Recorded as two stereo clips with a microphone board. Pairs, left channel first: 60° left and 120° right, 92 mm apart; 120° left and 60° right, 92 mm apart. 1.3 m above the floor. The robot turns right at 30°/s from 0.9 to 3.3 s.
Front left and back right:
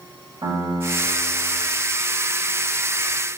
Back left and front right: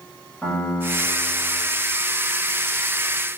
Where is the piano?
160° right, 7.5 m; by 1.6 s 140° right, 7.5 m.